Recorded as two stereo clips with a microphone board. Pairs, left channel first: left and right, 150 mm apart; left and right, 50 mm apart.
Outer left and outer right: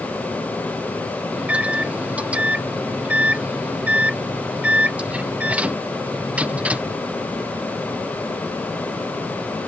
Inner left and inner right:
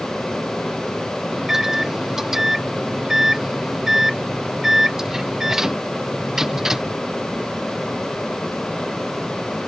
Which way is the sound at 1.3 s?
10° right (ahead or behind).